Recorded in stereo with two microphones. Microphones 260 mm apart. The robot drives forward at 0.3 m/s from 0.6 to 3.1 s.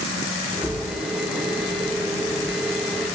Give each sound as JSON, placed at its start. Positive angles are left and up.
{"t": 0.6, "sound": "a bird", "side_deg": -85, "distance_m": 1.4}